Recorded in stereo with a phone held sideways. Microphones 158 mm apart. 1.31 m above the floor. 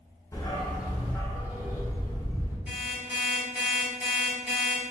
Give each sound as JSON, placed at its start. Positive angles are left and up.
{"t": 0.3, "sound": "a dog barking", "side_deg": 20, "distance_m": 0.9}
{"t": 2.7, "sound": "an alarm clock", "side_deg": -10, "distance_m": 1.5}